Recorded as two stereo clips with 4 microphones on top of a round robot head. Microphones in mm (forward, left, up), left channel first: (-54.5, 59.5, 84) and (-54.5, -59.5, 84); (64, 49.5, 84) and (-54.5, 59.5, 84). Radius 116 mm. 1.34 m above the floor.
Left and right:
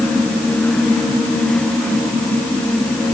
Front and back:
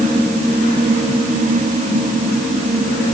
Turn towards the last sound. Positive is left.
No sound to turn to.